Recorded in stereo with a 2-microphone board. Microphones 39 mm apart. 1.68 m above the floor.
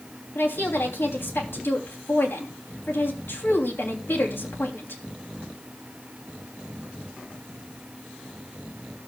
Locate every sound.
0.3 s a woman speaking: 80° left, 3 m